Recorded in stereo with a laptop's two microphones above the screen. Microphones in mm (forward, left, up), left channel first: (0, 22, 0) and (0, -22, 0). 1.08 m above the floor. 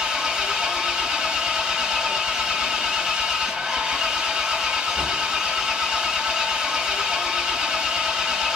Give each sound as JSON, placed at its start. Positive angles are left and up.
{"t": 0.0, "sound": "an engine running", "side_deg": -15, "distance_m": 2.0}